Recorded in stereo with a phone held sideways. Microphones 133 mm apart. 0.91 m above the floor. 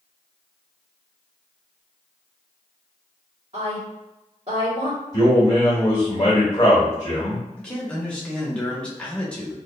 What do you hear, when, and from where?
3.5 s a woman speaking: 55° right (ahead or behind), 1.7 m
5.1 s a man speaking: 30° left (ahead or behind), 1.6 m
7.6 s a man speaking: 10° left (ahead or behind), 0.8 m